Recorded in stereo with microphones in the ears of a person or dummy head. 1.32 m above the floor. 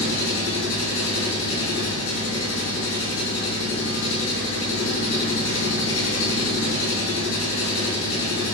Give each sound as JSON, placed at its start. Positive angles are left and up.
{"t": 0.0, "sound": "an engine running", "side_deg": 80, "distance_m": 5.0}